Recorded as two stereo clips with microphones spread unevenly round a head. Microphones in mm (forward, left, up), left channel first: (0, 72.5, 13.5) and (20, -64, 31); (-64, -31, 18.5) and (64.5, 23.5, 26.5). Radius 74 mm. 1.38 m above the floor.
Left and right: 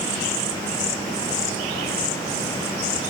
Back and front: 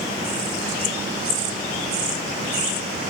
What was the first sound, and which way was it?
Only background noise.